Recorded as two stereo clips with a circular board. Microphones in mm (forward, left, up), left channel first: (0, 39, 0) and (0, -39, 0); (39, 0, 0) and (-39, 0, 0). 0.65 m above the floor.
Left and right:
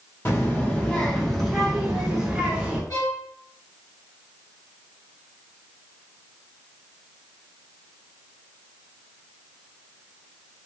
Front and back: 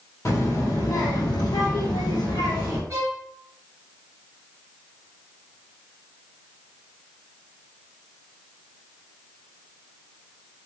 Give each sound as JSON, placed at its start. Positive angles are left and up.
{"t": 0.2, "sound": "a child speaking", "azimuth_deg": 40, "distance_m": 1.0}
{"t": 2.9, "sound": "a violin", "azimuth_deg": 130, "distance_m": 1.0}